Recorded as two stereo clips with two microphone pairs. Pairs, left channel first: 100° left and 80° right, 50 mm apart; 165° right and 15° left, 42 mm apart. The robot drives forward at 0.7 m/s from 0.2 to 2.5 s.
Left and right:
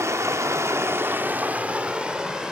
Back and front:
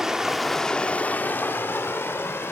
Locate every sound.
0.0 s running water: 65° right, 0.7 m; by 2.5 s 155° right, 1.5 m